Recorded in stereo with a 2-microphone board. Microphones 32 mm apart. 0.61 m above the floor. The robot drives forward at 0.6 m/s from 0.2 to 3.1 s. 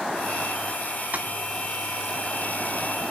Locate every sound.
1.1 s tapping: 60° right (ahead or behind), 0.6 m